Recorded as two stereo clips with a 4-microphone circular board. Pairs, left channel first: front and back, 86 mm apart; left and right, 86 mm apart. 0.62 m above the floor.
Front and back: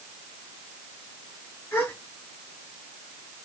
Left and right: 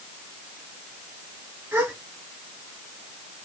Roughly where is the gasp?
Ahead right.